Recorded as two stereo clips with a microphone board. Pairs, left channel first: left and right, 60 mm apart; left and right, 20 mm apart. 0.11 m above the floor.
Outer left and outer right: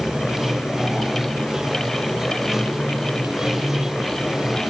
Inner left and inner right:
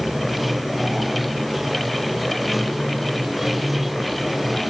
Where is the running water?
10° right (ahead or behind).